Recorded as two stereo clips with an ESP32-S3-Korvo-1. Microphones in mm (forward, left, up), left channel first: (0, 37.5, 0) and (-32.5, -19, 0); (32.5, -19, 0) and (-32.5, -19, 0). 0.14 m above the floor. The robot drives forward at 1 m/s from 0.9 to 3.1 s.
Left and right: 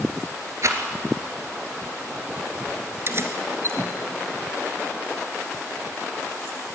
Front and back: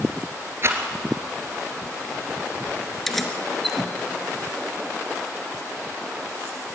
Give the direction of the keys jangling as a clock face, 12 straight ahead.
3 o'clock.